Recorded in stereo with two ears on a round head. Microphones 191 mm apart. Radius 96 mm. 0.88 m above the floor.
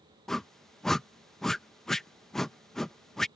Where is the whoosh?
Centre (ahead or behind).